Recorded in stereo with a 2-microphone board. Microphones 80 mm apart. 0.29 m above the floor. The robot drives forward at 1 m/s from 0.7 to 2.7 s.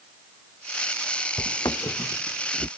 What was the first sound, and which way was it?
Footsteps, 65° left (ahead or behind).